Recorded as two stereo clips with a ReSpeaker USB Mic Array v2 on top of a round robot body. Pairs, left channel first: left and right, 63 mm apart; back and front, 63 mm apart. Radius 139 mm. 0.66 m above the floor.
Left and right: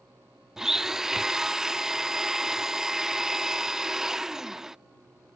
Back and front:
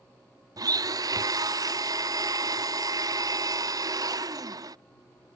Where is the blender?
5° right.